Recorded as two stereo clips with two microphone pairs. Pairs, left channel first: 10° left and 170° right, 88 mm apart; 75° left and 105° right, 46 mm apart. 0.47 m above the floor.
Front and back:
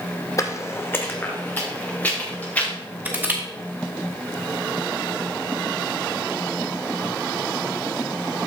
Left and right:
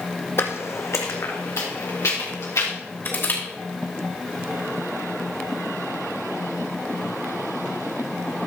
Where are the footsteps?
55° left, 0.9 m; by 2.7 s 80° left, 3.5 m.